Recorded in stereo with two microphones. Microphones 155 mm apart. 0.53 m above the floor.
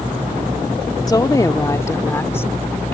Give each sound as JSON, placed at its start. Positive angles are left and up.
{"t": 1.1, "sound": "a woman speaking", "side_deg": 25}